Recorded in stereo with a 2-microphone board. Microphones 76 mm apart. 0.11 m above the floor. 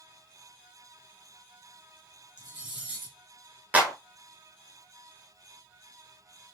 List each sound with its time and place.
2.4 s cutlery clinking: 20° right (ahead or behind), 1.8 m
3.7 s a clap: 20° right (ahead or behind), 1.1 m